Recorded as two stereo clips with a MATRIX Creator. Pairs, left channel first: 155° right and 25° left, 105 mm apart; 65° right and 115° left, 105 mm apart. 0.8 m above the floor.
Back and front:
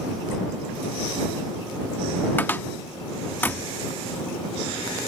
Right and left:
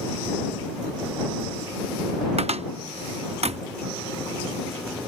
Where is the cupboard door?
130° left.